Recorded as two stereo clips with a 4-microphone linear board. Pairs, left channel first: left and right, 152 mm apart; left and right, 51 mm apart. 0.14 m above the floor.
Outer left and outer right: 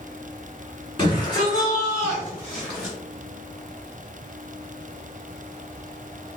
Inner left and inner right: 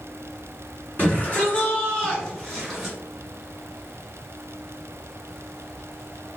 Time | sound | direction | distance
1.0 | a shout | 30° left (ahead or behind) | 1.6 m